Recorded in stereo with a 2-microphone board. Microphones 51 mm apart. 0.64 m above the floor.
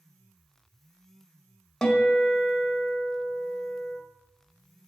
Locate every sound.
1.8 s a guitar: 10° left (ahead or behind), 1.3 m